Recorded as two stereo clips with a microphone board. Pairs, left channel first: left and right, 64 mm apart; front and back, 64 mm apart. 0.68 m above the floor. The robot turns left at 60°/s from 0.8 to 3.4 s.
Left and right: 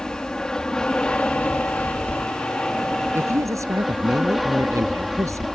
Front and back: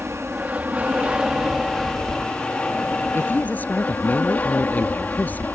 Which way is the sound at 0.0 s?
155° left.